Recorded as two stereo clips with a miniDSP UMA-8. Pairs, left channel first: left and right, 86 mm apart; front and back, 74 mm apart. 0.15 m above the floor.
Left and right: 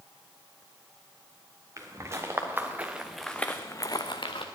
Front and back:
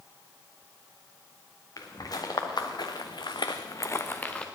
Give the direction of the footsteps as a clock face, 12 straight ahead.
1 o'clock.